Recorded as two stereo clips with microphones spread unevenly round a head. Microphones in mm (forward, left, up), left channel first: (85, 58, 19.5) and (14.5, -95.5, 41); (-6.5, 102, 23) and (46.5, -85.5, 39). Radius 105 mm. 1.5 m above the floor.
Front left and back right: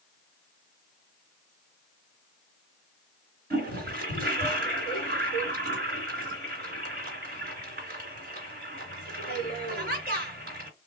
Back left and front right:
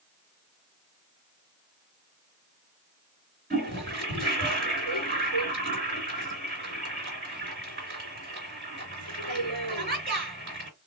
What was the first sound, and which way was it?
A toilet flushing, 110° right.